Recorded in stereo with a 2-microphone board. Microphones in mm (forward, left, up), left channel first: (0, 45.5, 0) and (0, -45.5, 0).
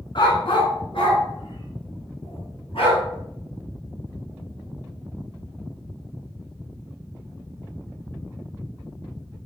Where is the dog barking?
60° left (ahead or behind), 1.7 m; by 3.0 s 85° left, 3.5 m.